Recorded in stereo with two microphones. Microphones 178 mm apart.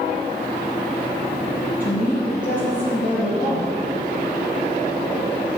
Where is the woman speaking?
45° left (ahead or behind), 4 m.